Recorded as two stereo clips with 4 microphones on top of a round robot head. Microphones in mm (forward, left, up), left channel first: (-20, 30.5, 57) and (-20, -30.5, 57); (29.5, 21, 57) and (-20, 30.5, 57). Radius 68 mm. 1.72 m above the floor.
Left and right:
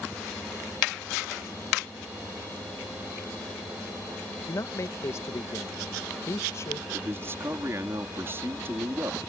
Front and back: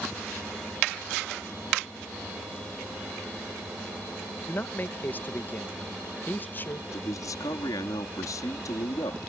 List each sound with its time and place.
4.5 s a man speaking: 40° left
6.9 s a man speaking: 30° right